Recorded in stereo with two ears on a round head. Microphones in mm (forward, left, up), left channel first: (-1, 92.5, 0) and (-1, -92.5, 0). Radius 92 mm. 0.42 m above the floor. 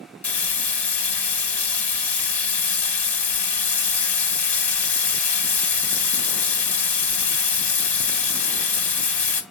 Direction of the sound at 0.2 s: 5° left (ahead or behind).